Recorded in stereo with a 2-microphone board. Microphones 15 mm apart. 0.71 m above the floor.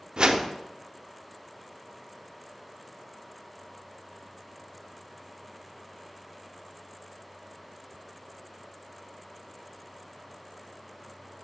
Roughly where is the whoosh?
Right.